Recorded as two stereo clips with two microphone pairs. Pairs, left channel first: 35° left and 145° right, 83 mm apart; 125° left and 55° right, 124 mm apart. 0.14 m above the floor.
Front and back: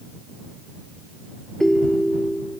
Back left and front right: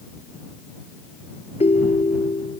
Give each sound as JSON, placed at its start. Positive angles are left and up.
{"t": 1.6, "sound": "a ringtone", "azimuth_deg": 115}